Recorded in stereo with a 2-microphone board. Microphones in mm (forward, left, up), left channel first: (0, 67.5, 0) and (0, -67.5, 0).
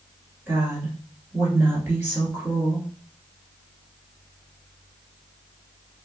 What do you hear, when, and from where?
0.5 s a woman speaking: 15° right (ahead or behind), 1.6 m